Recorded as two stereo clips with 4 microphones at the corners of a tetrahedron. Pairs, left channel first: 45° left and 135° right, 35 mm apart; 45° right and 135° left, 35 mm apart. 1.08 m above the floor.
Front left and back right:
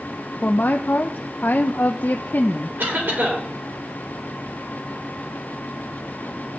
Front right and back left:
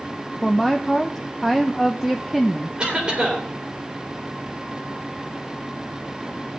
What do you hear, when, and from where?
0.4 s a woman speaking: 50° left, 0.7 m
2.8 s a cough: 160° right, 4 m